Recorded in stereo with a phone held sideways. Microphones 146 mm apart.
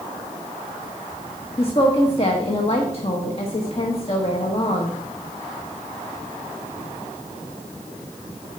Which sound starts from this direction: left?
A woman speaking, at 1.6 s.